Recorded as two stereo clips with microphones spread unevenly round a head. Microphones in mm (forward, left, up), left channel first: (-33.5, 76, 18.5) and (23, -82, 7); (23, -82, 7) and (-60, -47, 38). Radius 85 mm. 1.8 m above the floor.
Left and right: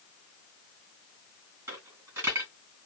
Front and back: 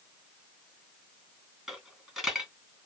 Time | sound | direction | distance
1.7 | a dropped coin | 145° right | 2.0 m